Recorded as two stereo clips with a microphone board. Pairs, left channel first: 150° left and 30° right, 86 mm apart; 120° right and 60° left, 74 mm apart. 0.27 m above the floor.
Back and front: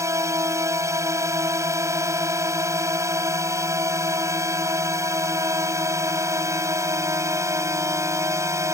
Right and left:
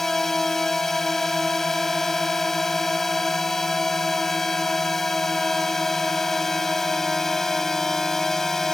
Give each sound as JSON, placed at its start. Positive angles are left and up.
{"t": 0.0, "sound": "a drone", "azimuth_deg": -35}